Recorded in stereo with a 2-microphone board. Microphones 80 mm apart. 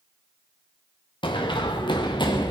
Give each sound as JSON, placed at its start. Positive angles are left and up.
{"t": 1.2, "sound": "running footsteps", "side_deg": 85, "distance_m": 2.0}